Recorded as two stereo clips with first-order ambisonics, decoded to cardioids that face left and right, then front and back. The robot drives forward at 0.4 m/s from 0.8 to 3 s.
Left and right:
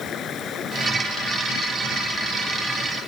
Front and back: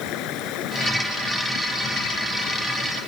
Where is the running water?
30° left; by 3.1 s 35° left.